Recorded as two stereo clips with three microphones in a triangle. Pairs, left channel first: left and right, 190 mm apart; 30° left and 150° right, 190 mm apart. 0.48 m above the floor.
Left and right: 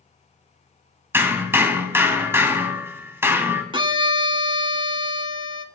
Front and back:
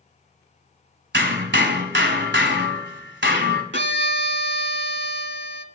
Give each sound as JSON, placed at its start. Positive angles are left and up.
{"t": 1.1, "sound": "hammering", "azimuth_deg": -170, "distance_m": 1.5}
{"t": 3.7, "sound": "a violin", "azimuth_deg": -155, "distance_m": 0.8}